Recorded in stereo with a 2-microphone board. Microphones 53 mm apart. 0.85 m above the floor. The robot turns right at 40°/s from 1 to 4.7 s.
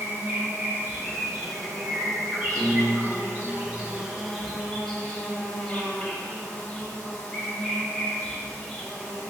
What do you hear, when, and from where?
0.0 s an insect: 140° right, 0.8 m; by 9.3 s 10° left, 0.8 m
1.0 s a bird: 15° left (ahead or behind), 1.8 m; by 3.5 s 75° right (ahead or behind), 1.8 m
2.5 s a piano: 130° right, 1.4 m; by 3.5 s 95° right, 1.4 m